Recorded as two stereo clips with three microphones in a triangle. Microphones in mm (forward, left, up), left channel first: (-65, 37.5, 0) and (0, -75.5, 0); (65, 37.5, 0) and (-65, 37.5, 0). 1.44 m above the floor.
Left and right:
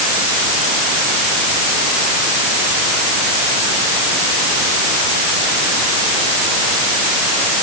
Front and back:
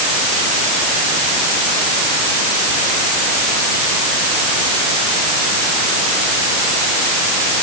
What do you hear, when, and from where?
Only background noise.